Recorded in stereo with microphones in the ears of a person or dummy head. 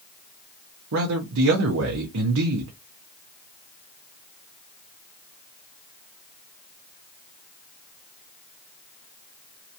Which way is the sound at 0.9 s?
80° right.